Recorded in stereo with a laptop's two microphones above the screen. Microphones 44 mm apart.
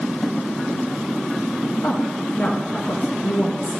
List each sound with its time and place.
1.8 s a woman speaking: 65° left (ahead or behind), 1.3 m